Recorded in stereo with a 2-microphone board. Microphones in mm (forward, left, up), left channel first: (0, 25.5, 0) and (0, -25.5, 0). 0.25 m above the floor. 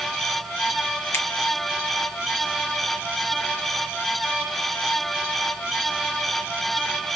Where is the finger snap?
55° left (ahead or behind), 1.4 m.